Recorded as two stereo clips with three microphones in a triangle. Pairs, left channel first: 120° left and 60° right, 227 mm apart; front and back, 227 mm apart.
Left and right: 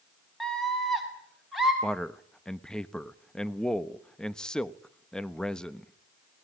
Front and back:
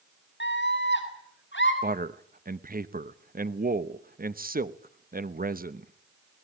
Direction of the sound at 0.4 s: 30° left.